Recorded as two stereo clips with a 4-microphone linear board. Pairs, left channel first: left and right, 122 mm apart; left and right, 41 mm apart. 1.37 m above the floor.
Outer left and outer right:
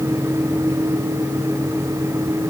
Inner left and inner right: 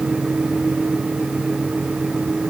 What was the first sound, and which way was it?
Only background noise.